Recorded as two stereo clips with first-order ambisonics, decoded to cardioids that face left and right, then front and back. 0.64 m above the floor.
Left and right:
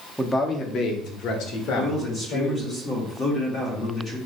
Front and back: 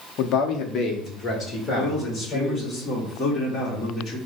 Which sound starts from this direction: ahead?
A man speaking, at 0.2 s.